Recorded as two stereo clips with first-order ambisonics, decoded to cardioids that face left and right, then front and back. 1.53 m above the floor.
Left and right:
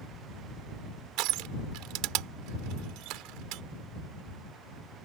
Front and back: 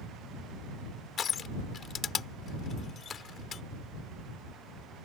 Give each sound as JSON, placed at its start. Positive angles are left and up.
{"t": 1.2, "sound": "crushing", "azimuth_deg": -65}